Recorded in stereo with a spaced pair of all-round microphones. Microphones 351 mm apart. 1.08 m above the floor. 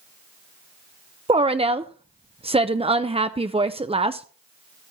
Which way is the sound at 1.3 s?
15° right (ahead or behind).